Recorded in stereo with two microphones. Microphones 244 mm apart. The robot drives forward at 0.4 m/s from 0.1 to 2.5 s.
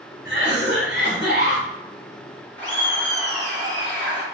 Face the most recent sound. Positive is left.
turn(degrees=10)  # may be behind; listen again after turning